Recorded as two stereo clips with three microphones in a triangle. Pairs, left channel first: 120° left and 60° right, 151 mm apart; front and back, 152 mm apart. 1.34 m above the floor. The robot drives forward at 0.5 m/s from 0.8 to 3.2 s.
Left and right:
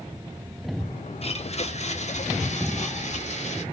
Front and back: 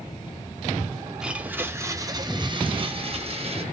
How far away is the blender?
About 1.1 m.